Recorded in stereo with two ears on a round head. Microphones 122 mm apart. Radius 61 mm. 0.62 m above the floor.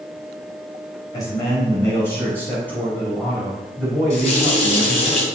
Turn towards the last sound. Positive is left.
turn(degrees=45)  # may be behind; listen again after turning